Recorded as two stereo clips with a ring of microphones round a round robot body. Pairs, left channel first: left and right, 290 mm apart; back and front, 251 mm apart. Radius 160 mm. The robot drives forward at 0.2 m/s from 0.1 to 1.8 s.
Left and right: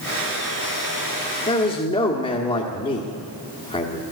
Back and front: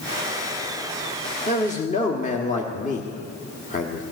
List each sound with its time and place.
1.5 s a man speaking: 145° left, 1.3 m; by 4.0 s 150° left, 1.3 m